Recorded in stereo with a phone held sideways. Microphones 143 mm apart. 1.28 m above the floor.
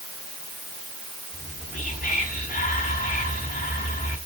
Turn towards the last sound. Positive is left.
turn(degrees=80)